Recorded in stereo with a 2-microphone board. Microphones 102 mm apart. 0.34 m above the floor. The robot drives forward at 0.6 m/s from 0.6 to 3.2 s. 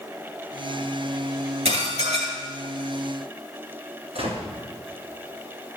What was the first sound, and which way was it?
Dishes clattering, 75° right (ahead or behind).